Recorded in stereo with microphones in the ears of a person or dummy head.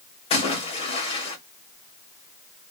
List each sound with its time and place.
0.3 s a splash: 35° left (ahead or behind), 1.6 m